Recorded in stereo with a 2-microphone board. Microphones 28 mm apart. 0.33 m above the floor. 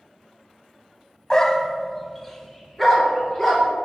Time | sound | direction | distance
1.3 | a dog barking | 20° left (ahead or behind) | 0.5 m